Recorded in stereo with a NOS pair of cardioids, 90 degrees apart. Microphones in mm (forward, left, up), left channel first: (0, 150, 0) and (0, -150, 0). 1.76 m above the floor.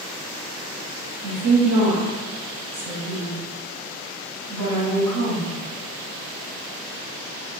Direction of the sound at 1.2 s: 65° right.